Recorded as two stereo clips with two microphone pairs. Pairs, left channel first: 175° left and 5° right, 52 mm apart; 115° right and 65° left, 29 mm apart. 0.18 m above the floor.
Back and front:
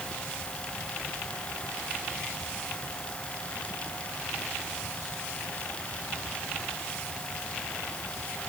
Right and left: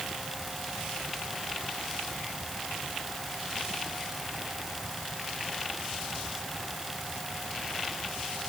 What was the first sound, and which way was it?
Only background noise.